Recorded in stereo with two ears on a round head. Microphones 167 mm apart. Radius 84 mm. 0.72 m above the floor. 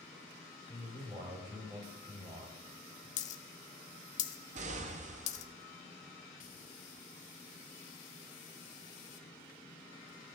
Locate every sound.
0.7 s a man speaking: 20° right (ahead or behind), 4.5 m
3.2 s a dropped coin: 40° left (ahead or behind), 0.7 m
4.5 s an explosion: 40° right (ahead or behind), 0.6 m